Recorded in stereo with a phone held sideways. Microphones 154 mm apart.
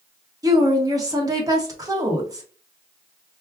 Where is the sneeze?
I don't hear a sneeze.